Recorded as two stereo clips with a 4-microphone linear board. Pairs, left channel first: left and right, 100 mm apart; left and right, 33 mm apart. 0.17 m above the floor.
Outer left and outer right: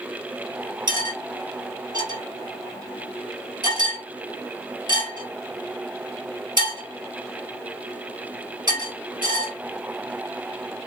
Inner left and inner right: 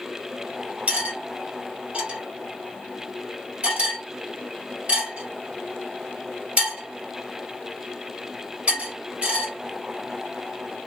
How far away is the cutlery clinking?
About 2.5 m.